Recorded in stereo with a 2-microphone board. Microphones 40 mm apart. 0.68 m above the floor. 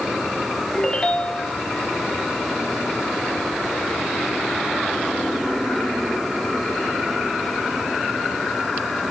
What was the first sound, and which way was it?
A ringtone, 15° left (ahead or behind).